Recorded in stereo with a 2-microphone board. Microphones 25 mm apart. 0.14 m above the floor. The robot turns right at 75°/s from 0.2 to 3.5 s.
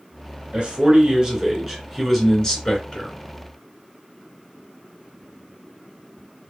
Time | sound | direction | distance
0.5 | a man speaking | 100° right | 2 m